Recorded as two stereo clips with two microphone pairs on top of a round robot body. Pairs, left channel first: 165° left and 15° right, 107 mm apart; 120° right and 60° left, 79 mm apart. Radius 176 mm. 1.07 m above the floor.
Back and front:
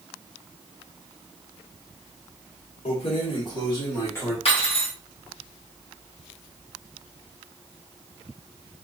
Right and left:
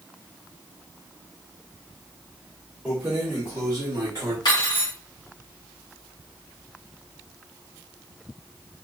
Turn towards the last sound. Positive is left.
turn(degrees=-155)